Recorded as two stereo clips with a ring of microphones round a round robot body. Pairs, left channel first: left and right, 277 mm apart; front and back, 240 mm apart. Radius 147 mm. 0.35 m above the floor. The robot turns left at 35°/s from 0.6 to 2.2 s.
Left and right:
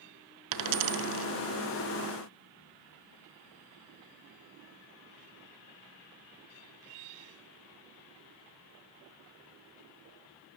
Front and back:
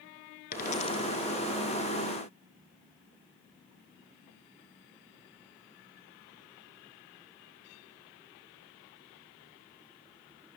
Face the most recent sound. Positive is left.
turn(degrees=-120)